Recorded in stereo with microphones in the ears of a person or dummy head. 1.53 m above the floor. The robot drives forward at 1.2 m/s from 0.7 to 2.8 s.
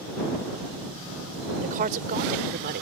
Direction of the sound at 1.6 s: 45° right (ahead or behind).